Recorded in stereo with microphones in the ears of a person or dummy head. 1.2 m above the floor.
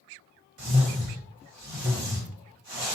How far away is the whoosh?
About 1.8 m.